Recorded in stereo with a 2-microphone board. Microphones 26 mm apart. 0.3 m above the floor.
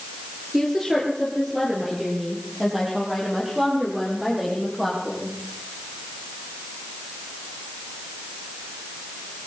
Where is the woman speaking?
5° right (ahead or behind), 4.5 m; by 5.3 s 15° right (ahead or behind), 11 m.